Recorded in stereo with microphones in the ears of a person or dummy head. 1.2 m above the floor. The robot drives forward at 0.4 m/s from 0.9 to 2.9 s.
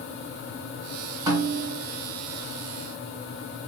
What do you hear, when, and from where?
1.3 s a snare drum: 25° right (ahead or behind), 1.7 m; by 1.8 s 20° right (ahead or behind), 1.9 m